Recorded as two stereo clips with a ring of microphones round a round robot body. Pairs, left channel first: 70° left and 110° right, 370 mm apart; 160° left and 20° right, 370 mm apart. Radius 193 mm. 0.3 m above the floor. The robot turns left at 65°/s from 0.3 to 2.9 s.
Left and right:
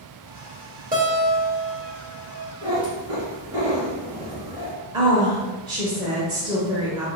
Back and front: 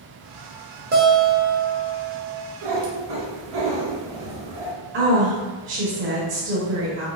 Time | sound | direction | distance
0.9 | a guitar | 60° right | 0.9 m
2.6 | a cat meowing | 10° right | 1.6 m
4.9 | a woman speaking | 45° right | 1.0 m